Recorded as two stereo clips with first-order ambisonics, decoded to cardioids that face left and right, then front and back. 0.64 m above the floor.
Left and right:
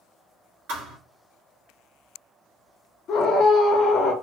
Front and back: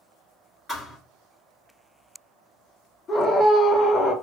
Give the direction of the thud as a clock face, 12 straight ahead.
3 o'clock.